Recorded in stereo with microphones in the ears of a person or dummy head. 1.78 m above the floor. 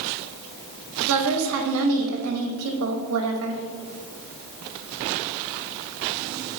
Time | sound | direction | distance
1.1 | a woman speaking | 65° right (ahead or behind) | 0.7 m